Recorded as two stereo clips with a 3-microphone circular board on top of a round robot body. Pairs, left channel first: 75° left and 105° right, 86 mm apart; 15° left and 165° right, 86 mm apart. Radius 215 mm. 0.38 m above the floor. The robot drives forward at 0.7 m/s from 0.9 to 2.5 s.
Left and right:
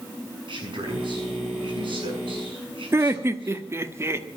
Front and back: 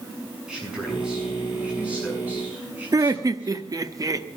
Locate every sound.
0.5 s a man speaking: 85° right, 8 m; by 3.6 s 95° right, 8 m
2.9 s laughter: 150° right, 1.5 m